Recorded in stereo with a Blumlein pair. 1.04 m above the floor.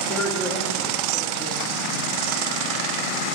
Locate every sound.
0.1 s a woman speaking: 15° left, 2.5 m